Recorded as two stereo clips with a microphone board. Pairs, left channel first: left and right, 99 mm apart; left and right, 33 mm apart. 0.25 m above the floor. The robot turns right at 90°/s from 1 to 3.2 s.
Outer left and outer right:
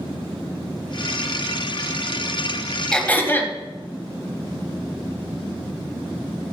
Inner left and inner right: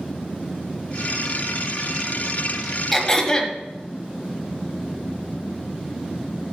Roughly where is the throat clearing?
Centre.